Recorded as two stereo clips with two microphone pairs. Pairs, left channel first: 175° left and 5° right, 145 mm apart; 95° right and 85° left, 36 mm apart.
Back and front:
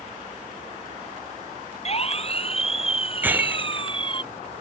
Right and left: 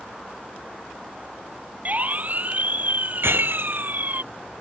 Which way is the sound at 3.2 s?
75° left.